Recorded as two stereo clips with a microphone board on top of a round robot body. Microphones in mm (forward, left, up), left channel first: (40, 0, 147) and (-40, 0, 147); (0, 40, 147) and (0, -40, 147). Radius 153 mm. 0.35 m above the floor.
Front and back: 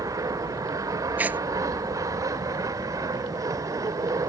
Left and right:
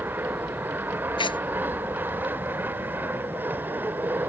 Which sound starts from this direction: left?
Tearing paper, at 1.2 s.